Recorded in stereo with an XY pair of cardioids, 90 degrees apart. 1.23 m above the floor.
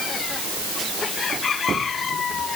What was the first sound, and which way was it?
Only background noise.